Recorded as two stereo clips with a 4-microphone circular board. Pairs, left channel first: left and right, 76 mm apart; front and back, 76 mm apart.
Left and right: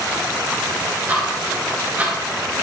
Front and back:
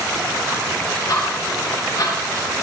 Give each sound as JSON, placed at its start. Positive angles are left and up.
{"t": 1.1, "sound": "ticking", "azimuth_deg": -25, "distance_m": 2.5}